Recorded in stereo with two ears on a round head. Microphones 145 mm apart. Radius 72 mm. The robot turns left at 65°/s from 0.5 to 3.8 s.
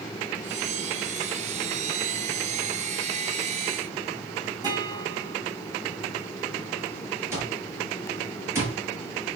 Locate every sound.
4.6 s a guitar: 25° right (ahead or behind), 3.5 m
7.3 s an alarm clock: 15° right (ahead or behind), 6 m